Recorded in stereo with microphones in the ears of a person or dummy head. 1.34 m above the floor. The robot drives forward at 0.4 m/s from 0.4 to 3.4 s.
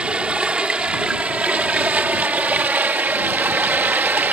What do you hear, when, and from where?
0.0 s running water: 5° right (ahead or behind); by 4.3 s 10° right (ahead or behind)